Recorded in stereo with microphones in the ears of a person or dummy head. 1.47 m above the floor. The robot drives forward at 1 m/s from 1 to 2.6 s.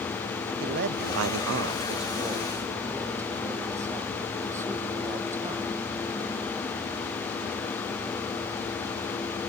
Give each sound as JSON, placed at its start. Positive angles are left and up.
{"t": 0.6, "sound": "a man speaking", "side_deg": -50}